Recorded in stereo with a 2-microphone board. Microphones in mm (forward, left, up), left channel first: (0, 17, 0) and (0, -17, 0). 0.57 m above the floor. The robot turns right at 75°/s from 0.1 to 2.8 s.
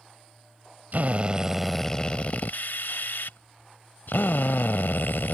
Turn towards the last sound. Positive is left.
turn(degrees=85)